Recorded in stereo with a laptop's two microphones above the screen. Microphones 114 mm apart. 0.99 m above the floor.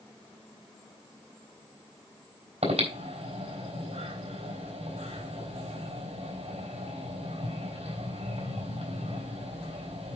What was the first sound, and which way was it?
Breathing, 80° right.